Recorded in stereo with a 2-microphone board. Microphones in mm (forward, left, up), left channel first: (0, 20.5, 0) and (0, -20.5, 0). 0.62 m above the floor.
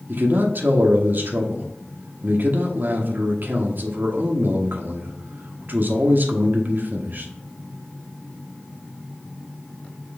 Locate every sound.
0.1 s a man speaking: 50° right (ahead or behind), 0.9 m